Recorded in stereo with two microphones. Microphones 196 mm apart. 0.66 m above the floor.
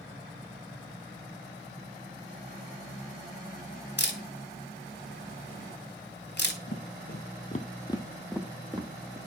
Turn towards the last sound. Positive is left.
turn(degrees=-35)  # may be behind; listen again after turning